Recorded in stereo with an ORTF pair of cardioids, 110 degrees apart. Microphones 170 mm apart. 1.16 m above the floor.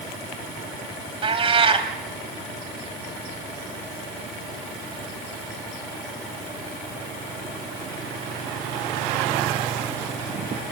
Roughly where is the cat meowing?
Ahead right.